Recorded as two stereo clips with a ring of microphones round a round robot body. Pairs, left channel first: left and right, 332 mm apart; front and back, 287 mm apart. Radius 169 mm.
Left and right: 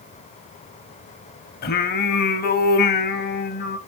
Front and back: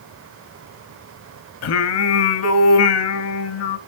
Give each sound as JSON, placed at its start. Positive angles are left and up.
{"t": 1.6, "sound": "singing", "azimuth_deg": 30, "distance_m": 1.1}